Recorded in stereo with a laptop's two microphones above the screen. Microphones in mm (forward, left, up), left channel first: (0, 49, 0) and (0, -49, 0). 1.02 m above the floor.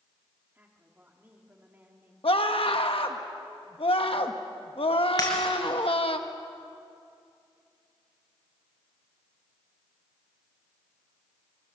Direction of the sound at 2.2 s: 70° left (ahead or behind).